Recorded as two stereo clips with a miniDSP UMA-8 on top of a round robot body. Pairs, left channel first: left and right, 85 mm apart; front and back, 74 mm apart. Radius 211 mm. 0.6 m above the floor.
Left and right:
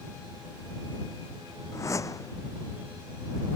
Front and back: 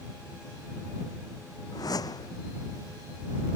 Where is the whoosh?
35° left.